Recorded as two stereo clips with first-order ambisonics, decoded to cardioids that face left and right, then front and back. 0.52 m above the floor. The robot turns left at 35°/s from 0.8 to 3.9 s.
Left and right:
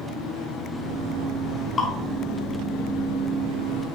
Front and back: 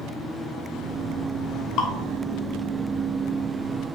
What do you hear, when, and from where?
1.8 s dripping: 25° left, 2 m; by 1.9 s 20° left, 2 m